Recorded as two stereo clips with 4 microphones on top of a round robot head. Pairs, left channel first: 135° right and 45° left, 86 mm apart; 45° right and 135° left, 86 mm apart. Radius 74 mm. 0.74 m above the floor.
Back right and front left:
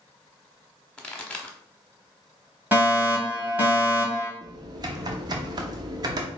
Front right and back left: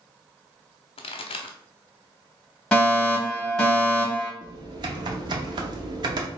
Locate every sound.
1.0 s a pop: 55° right, 0.7 m
2.7 s a fire alarm: 20° left, 1.9 m
4.4 s typing on a keyboard: 90° left, 0.5 m